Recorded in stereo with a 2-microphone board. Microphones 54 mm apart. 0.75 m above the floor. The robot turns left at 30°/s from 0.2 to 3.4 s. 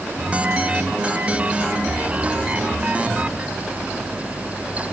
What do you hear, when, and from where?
Only background noise.